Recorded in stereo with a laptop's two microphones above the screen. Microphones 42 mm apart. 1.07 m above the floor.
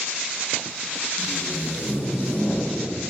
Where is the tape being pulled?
60° left (ahead or behind), 1.3 m.